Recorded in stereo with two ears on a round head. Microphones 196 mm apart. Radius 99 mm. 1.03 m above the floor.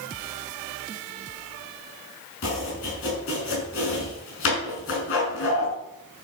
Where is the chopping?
60° left (ahead or behind), 6 m.